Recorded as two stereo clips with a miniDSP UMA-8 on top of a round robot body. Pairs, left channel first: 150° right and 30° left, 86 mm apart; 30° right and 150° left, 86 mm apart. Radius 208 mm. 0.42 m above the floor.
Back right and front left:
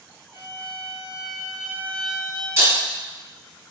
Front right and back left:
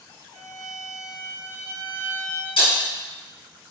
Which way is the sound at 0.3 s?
50° right.